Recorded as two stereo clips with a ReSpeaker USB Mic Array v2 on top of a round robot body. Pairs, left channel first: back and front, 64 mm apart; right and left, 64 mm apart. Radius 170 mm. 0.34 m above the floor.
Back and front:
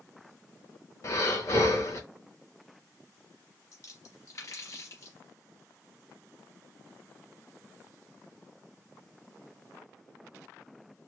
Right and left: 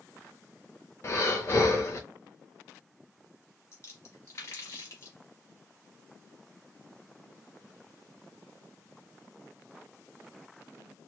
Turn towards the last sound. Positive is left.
turn(degrees=-140)